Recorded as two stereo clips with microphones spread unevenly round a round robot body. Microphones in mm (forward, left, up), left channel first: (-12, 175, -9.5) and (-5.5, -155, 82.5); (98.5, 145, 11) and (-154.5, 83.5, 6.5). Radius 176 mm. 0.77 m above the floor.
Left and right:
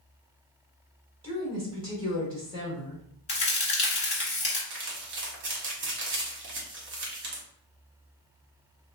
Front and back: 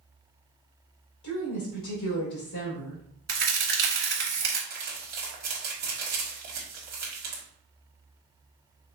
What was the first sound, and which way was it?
A woman speaking, 10° right.